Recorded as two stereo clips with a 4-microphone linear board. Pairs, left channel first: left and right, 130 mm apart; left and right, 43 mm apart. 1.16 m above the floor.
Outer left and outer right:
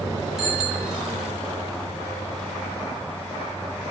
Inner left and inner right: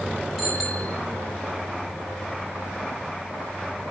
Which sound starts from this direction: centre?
A bicycle bell, at 0.4 s.